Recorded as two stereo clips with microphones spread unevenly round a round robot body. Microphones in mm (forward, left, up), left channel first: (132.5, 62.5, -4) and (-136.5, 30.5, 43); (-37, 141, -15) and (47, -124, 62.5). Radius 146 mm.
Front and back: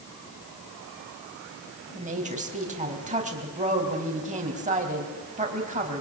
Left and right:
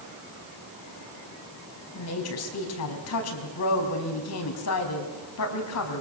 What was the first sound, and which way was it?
A woman speaking, 120° left.